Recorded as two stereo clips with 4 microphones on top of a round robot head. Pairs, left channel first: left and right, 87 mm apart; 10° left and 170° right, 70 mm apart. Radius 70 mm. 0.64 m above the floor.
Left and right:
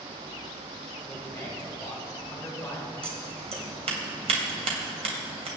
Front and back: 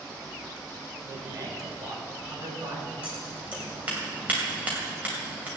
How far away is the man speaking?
About 3.5 m.